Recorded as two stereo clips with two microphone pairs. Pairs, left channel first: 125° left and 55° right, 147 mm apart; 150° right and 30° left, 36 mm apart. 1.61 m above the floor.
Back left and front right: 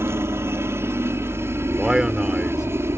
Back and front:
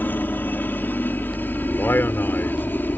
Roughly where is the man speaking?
Behind right.